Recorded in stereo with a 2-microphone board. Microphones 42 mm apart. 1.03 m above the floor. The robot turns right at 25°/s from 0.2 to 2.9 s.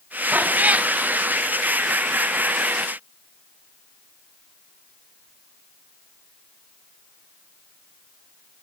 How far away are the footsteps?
No footsteps in this recording.